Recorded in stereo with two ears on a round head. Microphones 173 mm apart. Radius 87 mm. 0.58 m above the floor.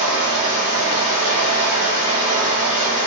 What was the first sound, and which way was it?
Running water, 40° right (ahead or behind).